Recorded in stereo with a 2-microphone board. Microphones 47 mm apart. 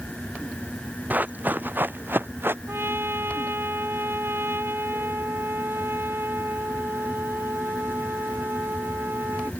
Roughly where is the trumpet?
Right.